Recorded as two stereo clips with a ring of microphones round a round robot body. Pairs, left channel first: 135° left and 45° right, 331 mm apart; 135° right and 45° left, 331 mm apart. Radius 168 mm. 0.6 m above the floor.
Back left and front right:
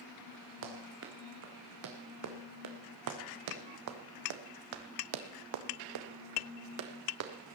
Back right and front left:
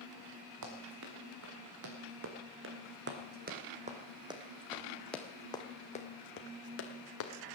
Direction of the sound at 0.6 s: 5° left.